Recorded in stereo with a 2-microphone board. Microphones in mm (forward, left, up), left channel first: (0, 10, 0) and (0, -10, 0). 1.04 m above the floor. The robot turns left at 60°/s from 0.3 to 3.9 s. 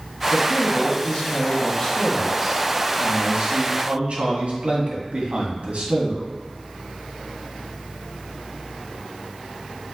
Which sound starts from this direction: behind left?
A man speaking, at 0.3 s.